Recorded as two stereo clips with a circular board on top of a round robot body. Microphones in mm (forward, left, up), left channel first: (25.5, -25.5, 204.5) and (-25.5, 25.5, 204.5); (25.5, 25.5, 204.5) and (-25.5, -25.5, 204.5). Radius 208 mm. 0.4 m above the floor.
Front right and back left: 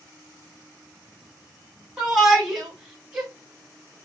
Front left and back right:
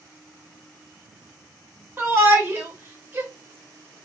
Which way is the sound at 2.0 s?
150° right.